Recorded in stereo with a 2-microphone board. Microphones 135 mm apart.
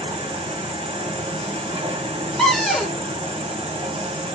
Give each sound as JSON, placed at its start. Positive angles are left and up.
{"t": 0.0, "sound": "an insect", "side_deg": -45, "distance_m": 1.4}
{"t": 2.4, "sound": "a cupboard door", "side_deg": 0, "distance_m": 1.7}